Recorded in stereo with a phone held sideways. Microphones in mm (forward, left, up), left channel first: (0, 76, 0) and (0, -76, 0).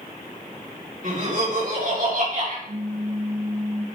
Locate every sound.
1.0 s laughter: 60° right (ahead or behind), 3 m
2.7 s a pop: 70° right (ahead or behind), 1.4 m